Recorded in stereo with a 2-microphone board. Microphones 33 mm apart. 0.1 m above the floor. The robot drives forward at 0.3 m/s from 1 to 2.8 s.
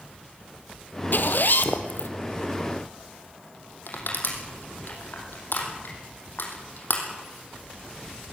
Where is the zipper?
65° left (ahead or behind), 1.6 m.